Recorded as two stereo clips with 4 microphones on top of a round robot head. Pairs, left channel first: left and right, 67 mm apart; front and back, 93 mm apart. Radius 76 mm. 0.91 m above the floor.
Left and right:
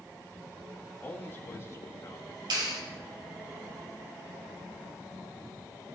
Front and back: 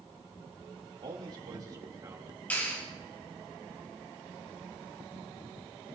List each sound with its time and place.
1.0 s a man speaking: 145° left, 3.5 m; by 2.4 s 125° left, 4 m
2.5 s a clap: 75° right, 5.5 m